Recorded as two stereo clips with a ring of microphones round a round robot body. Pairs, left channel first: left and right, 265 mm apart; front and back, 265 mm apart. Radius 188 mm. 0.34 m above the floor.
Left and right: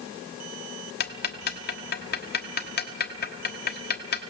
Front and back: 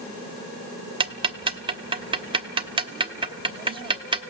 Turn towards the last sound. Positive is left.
turn(degrees=120)